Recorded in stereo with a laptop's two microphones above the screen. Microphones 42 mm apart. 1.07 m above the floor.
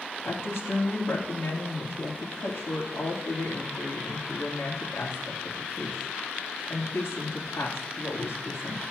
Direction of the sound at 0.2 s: 70° left (ahead or behind).